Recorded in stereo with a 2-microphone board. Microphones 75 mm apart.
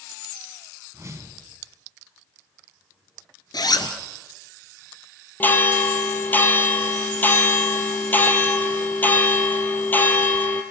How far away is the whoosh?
About 2.5 m.